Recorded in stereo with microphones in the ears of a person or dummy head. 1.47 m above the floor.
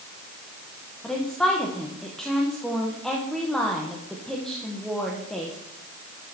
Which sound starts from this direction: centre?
A woman speaking, at 1.0 s.